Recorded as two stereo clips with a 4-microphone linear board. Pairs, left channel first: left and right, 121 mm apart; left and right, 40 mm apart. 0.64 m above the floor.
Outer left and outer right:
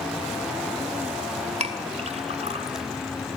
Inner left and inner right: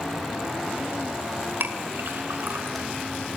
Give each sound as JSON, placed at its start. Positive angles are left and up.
{"t": 1.6, "sound": "a clink", "side_deg": -65, "distance_m": 2.0}